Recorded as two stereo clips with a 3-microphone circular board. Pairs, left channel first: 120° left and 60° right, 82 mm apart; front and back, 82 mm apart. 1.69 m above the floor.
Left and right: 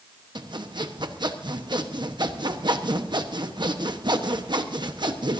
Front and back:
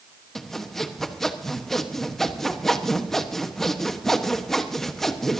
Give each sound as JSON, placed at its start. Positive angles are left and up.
{"t": 0.3, "sound": "sawing", "azimuth_deg": -85, "distance_m": 1.2}